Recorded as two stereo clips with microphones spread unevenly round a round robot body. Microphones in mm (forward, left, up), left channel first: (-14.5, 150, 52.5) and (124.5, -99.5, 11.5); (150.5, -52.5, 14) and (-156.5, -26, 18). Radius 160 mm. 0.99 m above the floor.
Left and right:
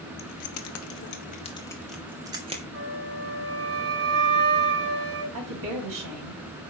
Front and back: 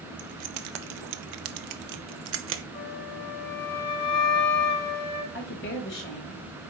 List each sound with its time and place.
0.2 s keys jangling: 150° left, 1.0 m; by 2.6 s 130° right, 1.0 m
2.7 s a flute: 25° right, 3 m
5.3 s a woman speaking: 65° right, 4 m